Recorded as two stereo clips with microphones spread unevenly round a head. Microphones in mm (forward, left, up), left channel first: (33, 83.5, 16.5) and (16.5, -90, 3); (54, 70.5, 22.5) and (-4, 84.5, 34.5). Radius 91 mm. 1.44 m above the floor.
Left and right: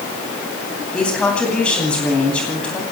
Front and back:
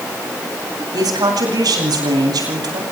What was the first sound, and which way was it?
A woman speaking, 170° left.